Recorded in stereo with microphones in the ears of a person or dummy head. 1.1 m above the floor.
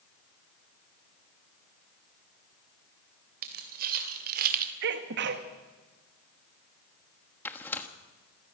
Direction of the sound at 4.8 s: 60° right (ahead or behind).